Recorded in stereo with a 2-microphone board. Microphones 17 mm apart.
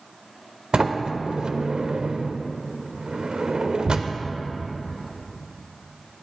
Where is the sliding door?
60° right (ahead or behind), 0.5 m.